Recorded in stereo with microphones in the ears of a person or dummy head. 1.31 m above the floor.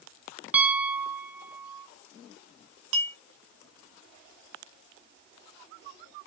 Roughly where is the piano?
Centre.